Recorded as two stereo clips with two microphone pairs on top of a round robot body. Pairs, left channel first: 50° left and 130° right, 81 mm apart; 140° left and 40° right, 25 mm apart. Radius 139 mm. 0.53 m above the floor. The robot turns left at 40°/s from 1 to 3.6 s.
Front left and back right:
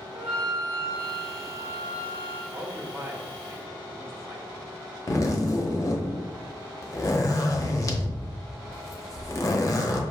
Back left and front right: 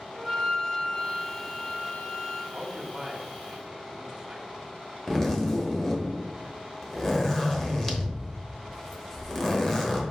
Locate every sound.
0.1 s a flute: 110° right, 1.5 m; by 2.4 s 170° right, 1.5 m
2.5 s a man speaking: 65° right, 1.1 m; by 4.5 s 105° right, 1.1 m
5.1 s a zipper: 80° left, 1.0 m